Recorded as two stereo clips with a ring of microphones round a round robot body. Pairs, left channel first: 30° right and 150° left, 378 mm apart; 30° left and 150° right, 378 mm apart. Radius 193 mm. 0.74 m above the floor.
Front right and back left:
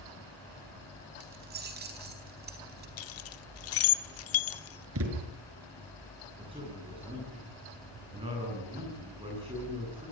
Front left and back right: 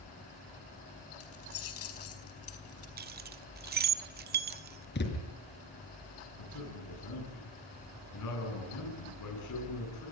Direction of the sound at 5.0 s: 95° left.